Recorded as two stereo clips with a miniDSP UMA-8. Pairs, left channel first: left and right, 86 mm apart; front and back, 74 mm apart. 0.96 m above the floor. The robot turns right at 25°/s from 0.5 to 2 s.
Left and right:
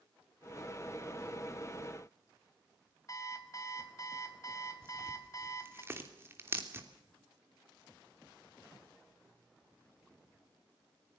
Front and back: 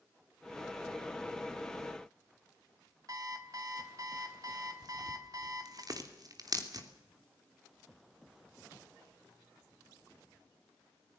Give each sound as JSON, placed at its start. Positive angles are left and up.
{"t": 3.1, "sound": "an alarm clock", "azimuth_deg": 140, "distance_m": 3.0}
{"t": 4.8, "sound": "tearing paper", "azimuth_deg": -150, "distance_m": 3.0}